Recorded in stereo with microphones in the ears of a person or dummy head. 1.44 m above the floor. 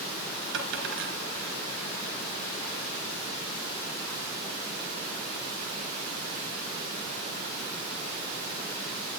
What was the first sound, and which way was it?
A dropped coin, 70° right (ahead or behind).